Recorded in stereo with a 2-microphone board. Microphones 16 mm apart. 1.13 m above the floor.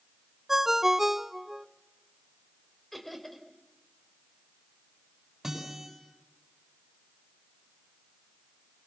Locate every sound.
0.5 s a ringtone: 25° right (ahead or behind), 0.7 m
2.9 s laughter: 5° left (ahead or behind), 4 m
5.4 s a guitar: 25° right (ahead or behind), 8 m